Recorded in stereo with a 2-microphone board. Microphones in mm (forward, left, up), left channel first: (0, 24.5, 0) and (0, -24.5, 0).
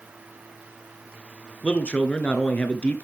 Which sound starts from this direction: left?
A man speaking, at 1.6 s.